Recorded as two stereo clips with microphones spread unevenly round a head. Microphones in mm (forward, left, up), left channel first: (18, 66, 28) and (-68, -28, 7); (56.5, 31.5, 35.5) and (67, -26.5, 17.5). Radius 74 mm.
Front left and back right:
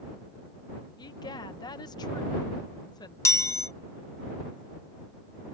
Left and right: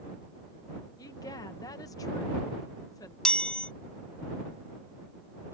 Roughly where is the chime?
Left.